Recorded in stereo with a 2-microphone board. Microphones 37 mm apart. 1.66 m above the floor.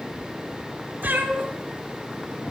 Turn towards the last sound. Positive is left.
turn(degrees=-65)  # may be behind; listen again after turning